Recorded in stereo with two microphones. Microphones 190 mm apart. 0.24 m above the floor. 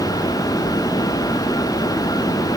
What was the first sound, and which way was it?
Only background noise.